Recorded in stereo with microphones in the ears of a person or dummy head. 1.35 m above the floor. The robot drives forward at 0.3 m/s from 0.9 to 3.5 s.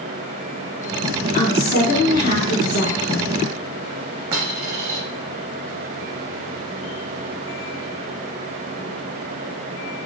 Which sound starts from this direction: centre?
A dropped coin, at 4.3 s.